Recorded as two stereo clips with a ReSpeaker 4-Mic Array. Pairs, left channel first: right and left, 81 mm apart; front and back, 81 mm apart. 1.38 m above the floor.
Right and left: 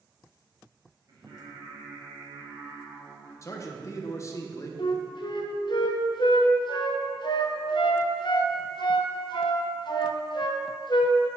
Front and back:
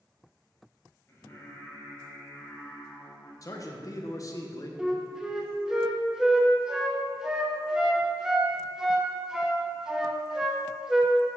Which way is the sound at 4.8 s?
100° right.